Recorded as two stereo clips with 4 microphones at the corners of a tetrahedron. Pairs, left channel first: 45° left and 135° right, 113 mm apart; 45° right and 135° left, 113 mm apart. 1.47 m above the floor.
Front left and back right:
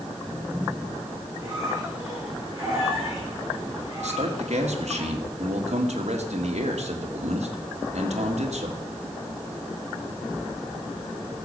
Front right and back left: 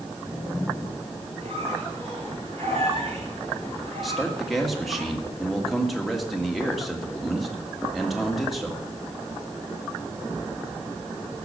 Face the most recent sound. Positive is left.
turn(degrees=-135)